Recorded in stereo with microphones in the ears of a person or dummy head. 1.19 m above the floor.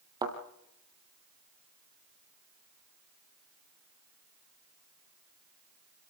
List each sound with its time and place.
0.2 s a thud: 25° right (ahead or behind), 2.0 m